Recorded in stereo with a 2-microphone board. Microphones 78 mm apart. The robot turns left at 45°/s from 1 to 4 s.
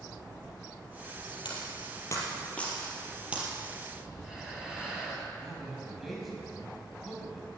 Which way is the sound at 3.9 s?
5° right (ahead or behind).